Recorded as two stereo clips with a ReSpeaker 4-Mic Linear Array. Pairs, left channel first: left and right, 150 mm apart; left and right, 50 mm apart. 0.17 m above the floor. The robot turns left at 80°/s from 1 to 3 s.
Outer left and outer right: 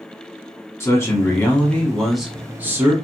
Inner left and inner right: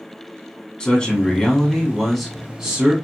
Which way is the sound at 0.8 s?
20° left (ahead or behind).